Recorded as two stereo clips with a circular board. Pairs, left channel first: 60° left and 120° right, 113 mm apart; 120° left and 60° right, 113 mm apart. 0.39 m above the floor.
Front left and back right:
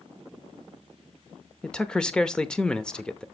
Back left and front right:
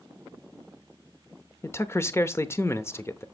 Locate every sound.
1.6 s a man speaking: 135° left, 0.8 m